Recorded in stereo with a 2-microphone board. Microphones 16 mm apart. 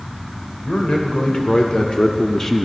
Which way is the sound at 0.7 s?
70° left (ahead or behind).